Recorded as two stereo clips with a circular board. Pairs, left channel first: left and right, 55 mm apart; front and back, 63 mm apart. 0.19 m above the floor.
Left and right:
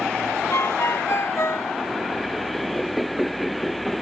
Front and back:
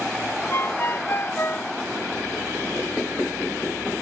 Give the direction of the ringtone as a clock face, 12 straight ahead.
10 o'clock.